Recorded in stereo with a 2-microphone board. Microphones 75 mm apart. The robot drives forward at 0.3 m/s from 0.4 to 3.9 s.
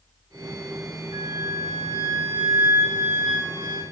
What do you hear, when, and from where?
1.1 s a flute: 85° right, 7.5 m